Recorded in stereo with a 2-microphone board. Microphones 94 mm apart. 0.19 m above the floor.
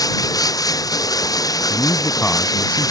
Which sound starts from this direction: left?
Running water, at 0.0 s.